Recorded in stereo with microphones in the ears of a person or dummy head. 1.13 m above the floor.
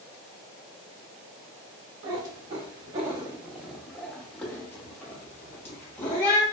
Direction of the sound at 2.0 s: 25° right (ahead or behind).